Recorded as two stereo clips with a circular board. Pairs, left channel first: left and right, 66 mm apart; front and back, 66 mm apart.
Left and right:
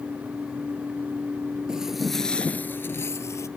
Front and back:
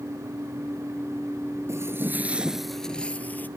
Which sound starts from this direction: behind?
Footsteps, at 1.7 s.